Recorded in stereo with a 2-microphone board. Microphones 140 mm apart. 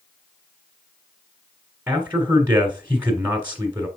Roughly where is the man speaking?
Centre.